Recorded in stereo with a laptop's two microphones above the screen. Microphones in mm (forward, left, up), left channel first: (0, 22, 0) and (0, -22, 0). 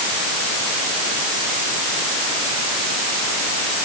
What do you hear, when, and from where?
Only background noise.